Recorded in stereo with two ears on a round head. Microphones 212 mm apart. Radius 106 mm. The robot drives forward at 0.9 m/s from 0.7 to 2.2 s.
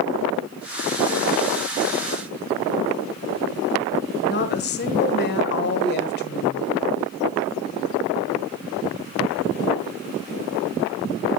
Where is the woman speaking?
45° left (ahead or behind), 1.6 m.